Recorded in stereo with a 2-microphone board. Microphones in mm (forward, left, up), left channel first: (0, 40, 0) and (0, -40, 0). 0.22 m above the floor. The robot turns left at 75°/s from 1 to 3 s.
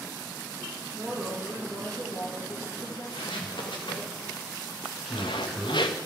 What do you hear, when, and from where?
0.9 s a woman speaking: 140° right, 4.5 m; by 4.1 s 70° left, 4.5 m
3.1 s footsteps: 75° left (ahead or behind), 4 m
5.0 s a man speaking: centre (ahead or behind), 2.5 m